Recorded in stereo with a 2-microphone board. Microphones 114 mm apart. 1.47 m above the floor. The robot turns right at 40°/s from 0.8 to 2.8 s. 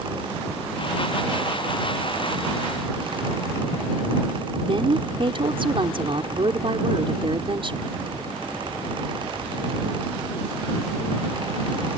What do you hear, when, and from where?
4.6 s a woman speaking: 50° right (ahead or behind)